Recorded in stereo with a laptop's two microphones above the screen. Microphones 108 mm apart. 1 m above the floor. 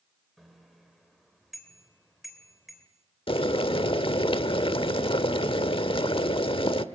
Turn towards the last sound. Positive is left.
turn(degrees=55)  # may be behind; listen again after turning